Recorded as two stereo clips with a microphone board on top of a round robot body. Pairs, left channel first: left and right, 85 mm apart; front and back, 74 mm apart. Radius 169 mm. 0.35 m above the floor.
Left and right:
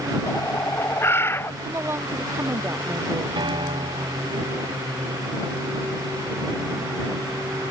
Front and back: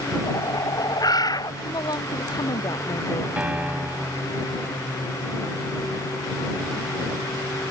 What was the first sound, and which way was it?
A bird, 30° left.